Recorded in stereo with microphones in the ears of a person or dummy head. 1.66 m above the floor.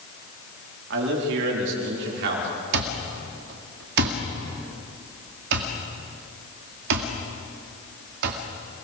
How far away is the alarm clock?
About 2.0 m.